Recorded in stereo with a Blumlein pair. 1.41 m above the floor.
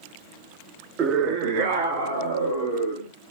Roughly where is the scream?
Ahead right.